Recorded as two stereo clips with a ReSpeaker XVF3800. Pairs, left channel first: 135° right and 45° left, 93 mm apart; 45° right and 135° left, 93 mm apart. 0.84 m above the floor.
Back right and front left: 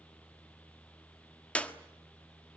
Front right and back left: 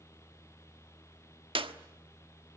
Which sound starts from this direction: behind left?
A clap, at 1.6 s.